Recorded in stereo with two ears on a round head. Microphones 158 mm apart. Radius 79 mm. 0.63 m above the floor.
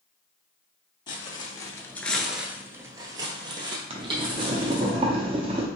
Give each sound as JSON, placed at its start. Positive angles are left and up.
{"t": 1.1, "sound": "footsteps", "side_deg": 25, "distance_m": 0.9}
{"t": 3.9, "sound": "boiling", "side_deg": -30, "distance_m": 0.6}